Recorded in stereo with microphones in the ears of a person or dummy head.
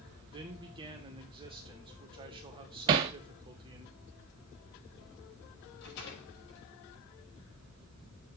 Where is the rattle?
65° left (ahead or behind), 5 m.